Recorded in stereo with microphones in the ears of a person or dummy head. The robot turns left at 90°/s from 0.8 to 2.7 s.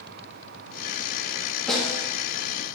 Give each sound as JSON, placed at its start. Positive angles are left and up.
{"t": 1.7, "sound": "a snare drum", "azimuth_deg": 5, "distance_m": 2.5}